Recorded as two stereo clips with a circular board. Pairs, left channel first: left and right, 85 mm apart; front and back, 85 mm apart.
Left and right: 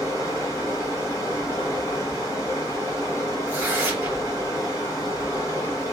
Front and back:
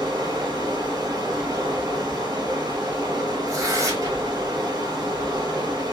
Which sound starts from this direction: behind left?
Running water, at 0.0 s.